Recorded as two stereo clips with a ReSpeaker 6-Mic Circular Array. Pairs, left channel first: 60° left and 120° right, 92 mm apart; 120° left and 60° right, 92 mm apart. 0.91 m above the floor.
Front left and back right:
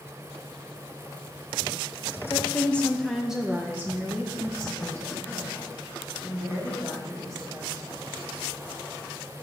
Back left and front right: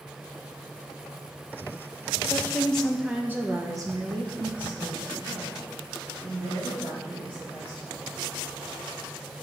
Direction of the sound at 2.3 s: 95° left.